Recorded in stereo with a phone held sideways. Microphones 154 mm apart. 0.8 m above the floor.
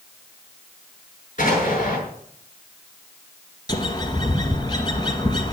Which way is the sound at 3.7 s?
30° left (ahead or behind).